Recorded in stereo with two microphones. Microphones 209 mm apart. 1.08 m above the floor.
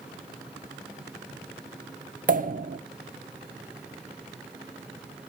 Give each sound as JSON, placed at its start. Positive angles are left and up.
{"t": 2.3, "sound": "a pop", "side_deg": -40, "distance_m": 1.0}